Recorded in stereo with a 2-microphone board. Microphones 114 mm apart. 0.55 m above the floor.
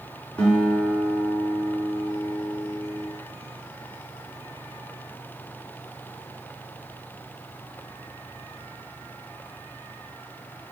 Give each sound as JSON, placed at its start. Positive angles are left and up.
{"t": 0.4, "sound": "a guitar", "side_deg": 10, "distance_m": 1.6}